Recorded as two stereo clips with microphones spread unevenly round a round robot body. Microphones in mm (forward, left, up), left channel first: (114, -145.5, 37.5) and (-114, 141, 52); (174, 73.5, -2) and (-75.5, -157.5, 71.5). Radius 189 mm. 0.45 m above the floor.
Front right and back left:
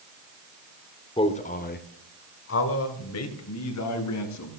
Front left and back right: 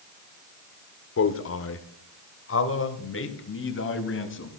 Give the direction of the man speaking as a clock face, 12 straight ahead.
11 o'clock.